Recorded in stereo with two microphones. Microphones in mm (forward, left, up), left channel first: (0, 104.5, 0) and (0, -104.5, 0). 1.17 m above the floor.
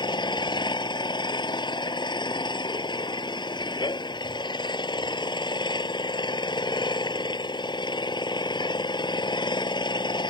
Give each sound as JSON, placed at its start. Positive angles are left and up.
{"t": 0.0, "sound": "an engine running", "side_deg": 20}